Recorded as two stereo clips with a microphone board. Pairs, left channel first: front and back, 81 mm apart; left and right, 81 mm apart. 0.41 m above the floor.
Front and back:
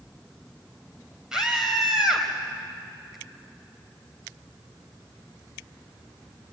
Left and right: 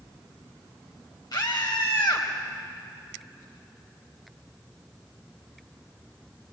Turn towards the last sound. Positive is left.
turn(degrees=100)